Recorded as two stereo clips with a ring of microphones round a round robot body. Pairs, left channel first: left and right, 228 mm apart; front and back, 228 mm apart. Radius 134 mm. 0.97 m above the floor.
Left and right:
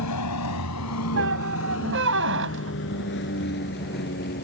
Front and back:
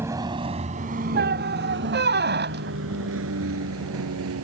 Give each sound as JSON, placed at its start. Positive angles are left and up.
{"t": 0.0, "sound": "a vehicle", "azimuth_deg": 100}
{"t": 1.1, "sound": "a squeak", "azimuth_deg": -135}